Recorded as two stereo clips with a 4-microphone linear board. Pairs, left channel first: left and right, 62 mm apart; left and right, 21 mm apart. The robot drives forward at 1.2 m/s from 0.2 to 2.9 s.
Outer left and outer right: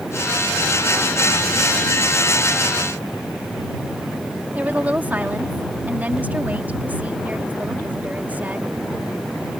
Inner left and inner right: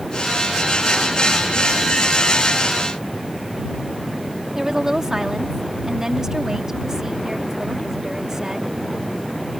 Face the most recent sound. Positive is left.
turn(degrees=-25)  # may be behind; listen again after turning